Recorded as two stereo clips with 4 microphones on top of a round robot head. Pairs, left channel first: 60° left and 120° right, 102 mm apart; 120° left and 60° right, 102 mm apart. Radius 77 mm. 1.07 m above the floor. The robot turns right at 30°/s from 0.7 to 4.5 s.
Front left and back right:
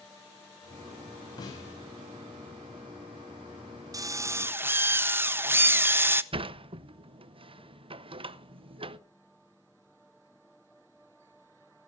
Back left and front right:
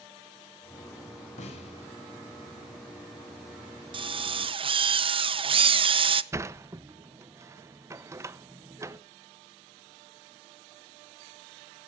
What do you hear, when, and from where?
1.4 s a snare drum: 110° left, 5.5 m; by 1.7 s 120° left, 5.5 m
3.9 s a drill: 75° right, 0.8 m; by 6.2 s 60° right, 0.8 m
6.3 s a sliding door: 115° right, 0.8 m